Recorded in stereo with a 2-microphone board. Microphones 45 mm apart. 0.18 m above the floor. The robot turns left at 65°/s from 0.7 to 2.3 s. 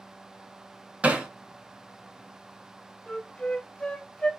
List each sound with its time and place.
1.0 s hammering: 30° right (ahead or behind), 0.8 m; by 1.3 s 15° right (ahead or behind), 0.8 m
3.1 s a flute: 20° left (ahead or behind), 0.7 m